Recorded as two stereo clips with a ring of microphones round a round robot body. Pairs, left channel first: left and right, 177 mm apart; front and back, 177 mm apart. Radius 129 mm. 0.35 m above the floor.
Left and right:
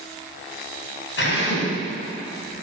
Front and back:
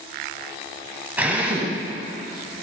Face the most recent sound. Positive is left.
turn(degrees=100)